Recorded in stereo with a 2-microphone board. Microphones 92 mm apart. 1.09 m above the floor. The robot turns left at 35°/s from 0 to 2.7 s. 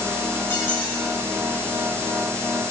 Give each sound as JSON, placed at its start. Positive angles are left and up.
{"t": 0.5, "sound": "a squeak", "side_deg": 25, "distance_m": 4.5}